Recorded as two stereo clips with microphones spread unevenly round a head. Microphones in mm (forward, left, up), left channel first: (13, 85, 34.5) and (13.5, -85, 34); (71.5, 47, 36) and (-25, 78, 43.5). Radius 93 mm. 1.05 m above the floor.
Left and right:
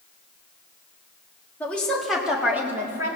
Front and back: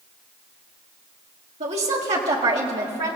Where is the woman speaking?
170° left, 1.9 m; by 3.2 s 160° right, 2.5 m.